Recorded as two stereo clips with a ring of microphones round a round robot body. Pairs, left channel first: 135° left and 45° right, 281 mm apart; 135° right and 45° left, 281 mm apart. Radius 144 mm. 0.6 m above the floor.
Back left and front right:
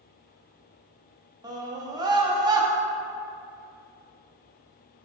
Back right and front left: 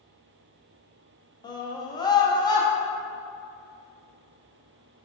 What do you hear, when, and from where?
1.4 s a scream: 90° right, 0.6 m